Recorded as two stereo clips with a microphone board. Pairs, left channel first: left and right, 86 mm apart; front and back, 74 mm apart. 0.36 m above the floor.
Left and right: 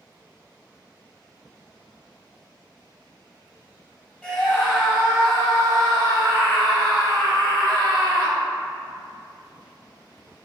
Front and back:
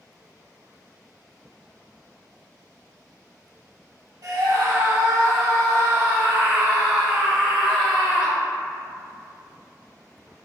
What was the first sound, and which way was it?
A scream, 175° right.